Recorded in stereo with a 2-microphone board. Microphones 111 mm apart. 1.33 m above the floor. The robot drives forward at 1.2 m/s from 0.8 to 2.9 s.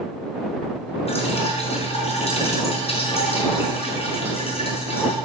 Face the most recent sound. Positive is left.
turn(degrees=60)  # may be behind; listen again after turning